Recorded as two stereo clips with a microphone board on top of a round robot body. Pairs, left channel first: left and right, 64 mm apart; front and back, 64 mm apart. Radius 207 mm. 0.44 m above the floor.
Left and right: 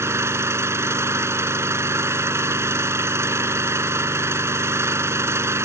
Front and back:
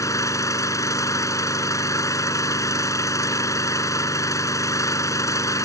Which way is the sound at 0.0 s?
40° right.